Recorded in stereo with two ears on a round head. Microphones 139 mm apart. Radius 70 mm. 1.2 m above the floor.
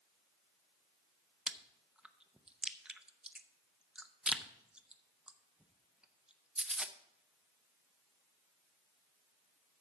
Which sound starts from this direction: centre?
Chewing, at 1.5 s.